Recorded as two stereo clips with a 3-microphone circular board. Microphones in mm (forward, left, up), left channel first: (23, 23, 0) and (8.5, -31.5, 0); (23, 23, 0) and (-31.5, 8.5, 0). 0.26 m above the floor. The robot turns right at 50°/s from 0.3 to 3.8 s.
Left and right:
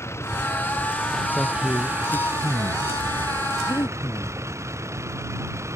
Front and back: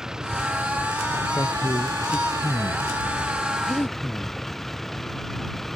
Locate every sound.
0.0 s a vehicle: 115° left; by 5.8 s 70° right
1.4 s a man speaking: 5° left; by 2.9 s 85° left
3.7 s breathing: 60° left; by 4.3 s 70° left